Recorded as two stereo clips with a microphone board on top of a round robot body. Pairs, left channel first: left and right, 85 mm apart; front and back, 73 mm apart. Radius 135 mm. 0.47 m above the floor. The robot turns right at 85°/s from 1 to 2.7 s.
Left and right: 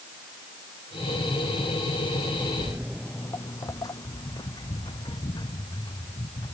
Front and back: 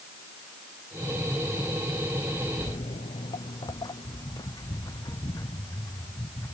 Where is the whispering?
No whispering in this recording.